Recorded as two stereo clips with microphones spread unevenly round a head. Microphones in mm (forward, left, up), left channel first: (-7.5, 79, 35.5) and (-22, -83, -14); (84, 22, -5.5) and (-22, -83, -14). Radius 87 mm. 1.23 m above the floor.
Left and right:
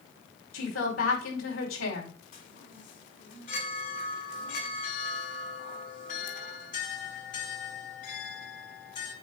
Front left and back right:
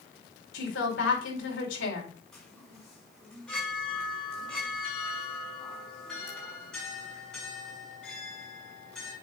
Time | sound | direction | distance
0.5 | a woman speaking | 65° left | 5.5 m
2.3 | a chime | 130° left | 5.5 m